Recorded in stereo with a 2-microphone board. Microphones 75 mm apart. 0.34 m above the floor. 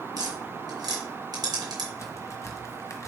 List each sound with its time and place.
0.2 s tapping: 70° right (ahead or behind), 2.5 m
2.0 s a crack: 45° left (ahead or behind), 1.2 m